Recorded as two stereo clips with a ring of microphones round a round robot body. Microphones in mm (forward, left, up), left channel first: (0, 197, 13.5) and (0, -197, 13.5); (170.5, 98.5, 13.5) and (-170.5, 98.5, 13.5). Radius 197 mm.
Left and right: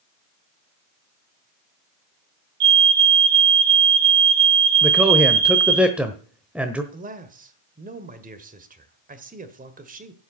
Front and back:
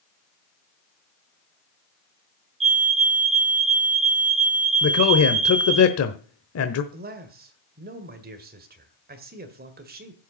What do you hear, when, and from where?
2.6 s a fire alarm: 105° right, 4.5 m
4.8 s a man speaking: 5° right, 1.0 m
6.9 s a man speaking: 140° right, 1.6 m